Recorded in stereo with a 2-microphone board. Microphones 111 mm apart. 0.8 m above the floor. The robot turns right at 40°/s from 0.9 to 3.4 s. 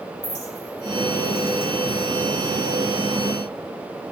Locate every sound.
0.2 s a clink: 80° left, 2.5 m; by 2.5 s 15° left (ahead or behind), 2.5 m